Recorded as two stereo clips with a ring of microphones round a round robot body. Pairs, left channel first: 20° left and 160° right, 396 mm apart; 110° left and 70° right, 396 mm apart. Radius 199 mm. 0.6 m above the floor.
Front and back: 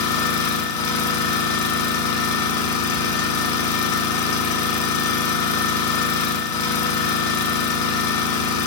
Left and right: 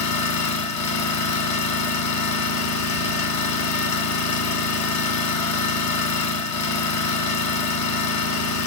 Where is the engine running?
60° left, 1.1 m.